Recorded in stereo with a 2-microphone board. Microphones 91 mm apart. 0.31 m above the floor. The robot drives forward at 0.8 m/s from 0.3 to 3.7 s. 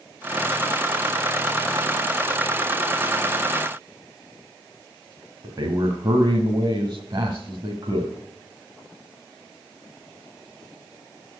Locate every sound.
5.4 s a man speaking: 45° right (ahead or behind), 1.7 m